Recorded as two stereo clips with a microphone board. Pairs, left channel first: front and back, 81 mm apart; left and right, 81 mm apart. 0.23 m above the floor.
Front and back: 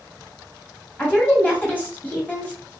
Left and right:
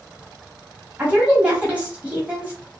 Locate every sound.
1.0 s a woman speaking: 45° right, 1.1 m